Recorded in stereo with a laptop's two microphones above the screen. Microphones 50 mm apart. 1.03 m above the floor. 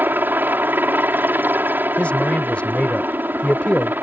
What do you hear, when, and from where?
0.0 s a helicopter: 40° right (ahead or behind)
2.0 s a man speaking: 25° left (ahead or behind)